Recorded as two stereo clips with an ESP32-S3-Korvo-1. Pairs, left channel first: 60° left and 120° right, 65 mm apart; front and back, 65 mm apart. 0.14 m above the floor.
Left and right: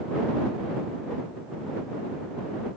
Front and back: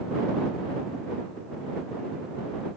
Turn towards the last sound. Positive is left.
No sound to turn to.